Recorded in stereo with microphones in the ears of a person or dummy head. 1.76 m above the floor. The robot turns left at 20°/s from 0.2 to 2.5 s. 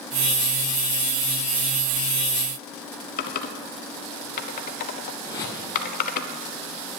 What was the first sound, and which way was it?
Typing on a keyboard, 45° left (ahead or behind).